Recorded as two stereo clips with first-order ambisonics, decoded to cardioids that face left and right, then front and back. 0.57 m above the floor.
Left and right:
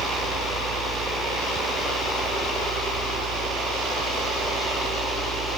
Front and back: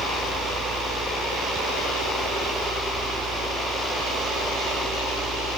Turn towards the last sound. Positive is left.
turn(degrees=-125)